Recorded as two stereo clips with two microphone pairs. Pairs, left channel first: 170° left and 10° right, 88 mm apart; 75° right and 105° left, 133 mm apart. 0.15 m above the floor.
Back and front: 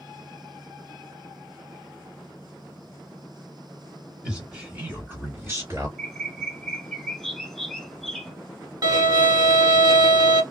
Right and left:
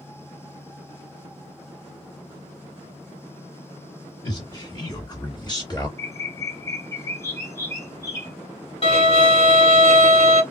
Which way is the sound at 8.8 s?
40° right.